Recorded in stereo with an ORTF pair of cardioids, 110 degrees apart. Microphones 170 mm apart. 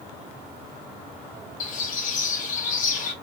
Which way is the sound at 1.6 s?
50° left.